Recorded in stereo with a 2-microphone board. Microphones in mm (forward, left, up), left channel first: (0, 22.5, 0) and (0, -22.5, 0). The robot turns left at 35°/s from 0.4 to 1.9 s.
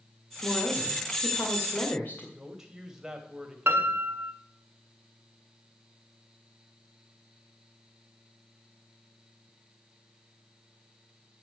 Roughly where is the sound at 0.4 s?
Left.